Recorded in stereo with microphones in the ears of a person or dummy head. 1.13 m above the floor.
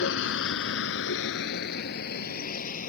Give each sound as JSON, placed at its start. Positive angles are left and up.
{"t": 0.0, "sound": "a vehicle", "side_deg": 75}